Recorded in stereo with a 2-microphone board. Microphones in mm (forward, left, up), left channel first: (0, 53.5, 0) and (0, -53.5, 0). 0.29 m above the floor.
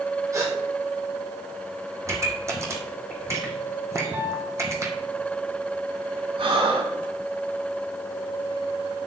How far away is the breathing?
About 3.5 m.